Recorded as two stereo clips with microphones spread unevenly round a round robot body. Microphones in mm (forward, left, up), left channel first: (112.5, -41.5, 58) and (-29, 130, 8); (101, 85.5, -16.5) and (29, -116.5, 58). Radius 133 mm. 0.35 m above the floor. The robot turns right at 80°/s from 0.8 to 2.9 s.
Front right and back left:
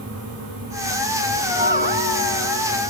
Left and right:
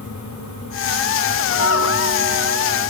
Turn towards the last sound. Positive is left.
turn(degrees=175)